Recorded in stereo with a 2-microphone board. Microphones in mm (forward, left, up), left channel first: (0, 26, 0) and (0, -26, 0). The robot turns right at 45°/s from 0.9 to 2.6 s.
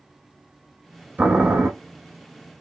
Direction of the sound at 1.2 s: 35° right (ahead or behind).